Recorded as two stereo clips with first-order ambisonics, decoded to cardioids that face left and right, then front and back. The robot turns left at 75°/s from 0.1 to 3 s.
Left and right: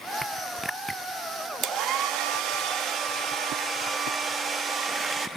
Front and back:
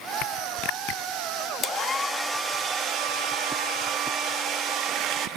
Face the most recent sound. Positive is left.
turn(degrees=-150)